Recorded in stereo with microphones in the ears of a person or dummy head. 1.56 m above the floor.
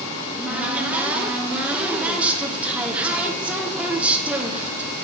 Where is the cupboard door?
5° right (ahead or behind), 1.0 m.